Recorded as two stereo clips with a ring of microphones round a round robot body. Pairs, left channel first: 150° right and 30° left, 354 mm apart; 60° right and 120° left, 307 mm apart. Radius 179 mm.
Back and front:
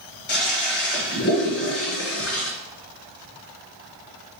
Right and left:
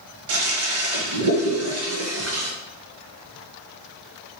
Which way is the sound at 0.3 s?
155° left.